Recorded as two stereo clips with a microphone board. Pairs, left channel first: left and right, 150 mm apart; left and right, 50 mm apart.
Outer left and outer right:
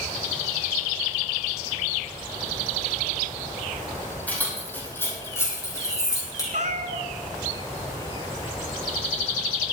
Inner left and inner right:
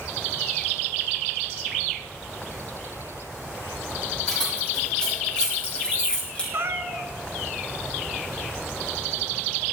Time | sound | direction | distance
4.3 | keys jangling | 10° left (ahead or behind) | 8 m
6.5 | a cat meowing | 60° right (ahead or behind) | 1.2 m